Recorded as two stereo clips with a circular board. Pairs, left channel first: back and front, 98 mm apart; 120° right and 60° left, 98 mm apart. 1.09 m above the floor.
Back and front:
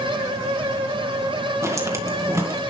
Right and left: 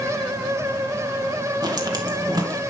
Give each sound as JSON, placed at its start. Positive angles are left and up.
{"t": 1.6, "sound": "footsteps", "azimuth_deg": 45, "distance_m": 1.5}